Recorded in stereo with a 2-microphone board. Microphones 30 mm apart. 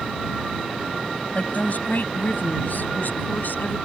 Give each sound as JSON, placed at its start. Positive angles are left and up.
{"t": 1.4, "sound": "a woman speaking", "side_deg": 55}